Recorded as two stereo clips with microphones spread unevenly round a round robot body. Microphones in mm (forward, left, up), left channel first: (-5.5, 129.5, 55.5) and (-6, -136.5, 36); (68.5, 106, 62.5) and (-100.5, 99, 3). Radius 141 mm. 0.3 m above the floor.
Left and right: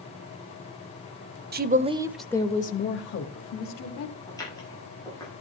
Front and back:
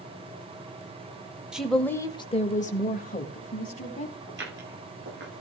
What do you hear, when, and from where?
1.5 s a woman speaking: 115° right, 1.1 m; by 4.2 s 55° left, 2 m
4.3 s footsteps: 170° left, 10 m